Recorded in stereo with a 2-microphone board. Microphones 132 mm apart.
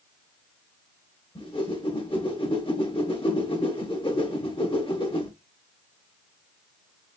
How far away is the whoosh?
About 1.1 m.